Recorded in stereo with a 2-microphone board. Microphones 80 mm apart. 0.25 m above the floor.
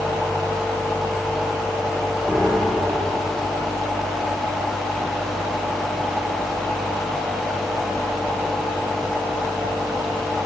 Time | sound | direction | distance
2.3 | a piano | 5° right (ahead or behind) | 2.5 m